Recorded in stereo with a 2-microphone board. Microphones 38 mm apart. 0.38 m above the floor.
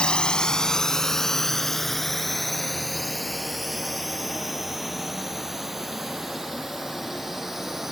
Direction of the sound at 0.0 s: 25° left (ahead or behind).